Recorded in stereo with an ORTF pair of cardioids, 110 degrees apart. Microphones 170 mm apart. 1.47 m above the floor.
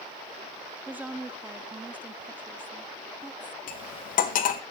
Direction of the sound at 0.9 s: 10° right.